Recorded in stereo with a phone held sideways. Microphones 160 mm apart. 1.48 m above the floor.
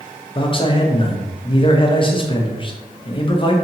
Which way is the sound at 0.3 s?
35° left (ahead or behind).